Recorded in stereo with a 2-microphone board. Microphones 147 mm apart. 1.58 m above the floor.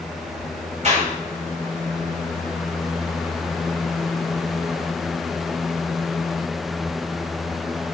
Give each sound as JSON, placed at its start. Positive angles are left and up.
{"t": 0.8, "sound": "a clap", "side_deg": -55, "distance_m": 7.5}